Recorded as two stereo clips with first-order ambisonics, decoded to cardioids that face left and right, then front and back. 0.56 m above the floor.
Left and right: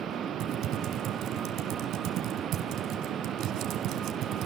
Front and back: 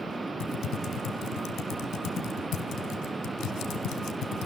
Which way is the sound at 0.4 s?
45° right.